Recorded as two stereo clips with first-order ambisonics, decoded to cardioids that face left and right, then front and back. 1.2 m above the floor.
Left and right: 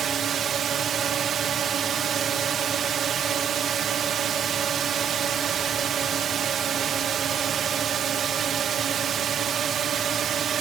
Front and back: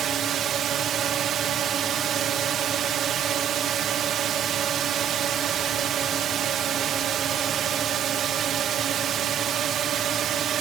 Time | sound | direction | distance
0.0 | a drone | 140° right | ?